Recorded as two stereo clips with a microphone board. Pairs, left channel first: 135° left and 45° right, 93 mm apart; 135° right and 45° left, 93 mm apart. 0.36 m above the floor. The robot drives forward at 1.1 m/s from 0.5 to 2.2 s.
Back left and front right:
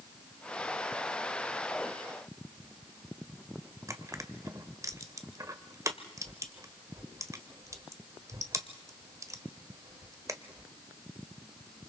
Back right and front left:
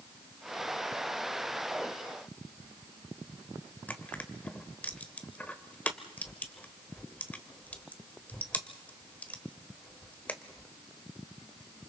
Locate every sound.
3.9 s crushing: 70° right, 1.2 m